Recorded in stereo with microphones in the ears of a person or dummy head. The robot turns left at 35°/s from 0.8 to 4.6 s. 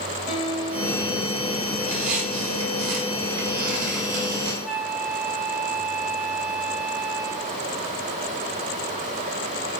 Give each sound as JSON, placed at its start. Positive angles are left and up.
{"t": 0.3, "sound": "a guitar", "azimuth_deg": 25, "distance_m": 6.5}
{"t": 1.8, "sound": "a squeak", "azimuth_deg": -40, "distance_m": 5.0}
{"t": 4.7, "sound": "a flute", "side_deg": -5, "distance_m": 1.1}